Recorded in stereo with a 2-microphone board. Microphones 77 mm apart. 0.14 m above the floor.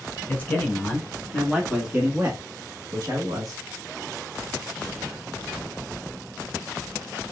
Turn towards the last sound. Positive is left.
turn(degrees=-50)  # may be behind; listen again after turning